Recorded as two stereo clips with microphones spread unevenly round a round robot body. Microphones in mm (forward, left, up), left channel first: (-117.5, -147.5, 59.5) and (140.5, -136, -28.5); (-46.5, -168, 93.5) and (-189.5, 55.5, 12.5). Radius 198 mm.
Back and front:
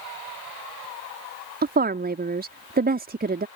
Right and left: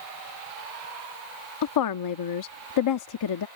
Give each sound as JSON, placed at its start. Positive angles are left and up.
{"t": 1.6, "sound": "a woman speaking", "azimuth_deg": -50}